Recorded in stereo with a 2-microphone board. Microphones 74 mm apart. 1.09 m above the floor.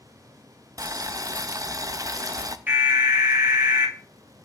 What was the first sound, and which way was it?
Boiling, 50° right (ahead or behind).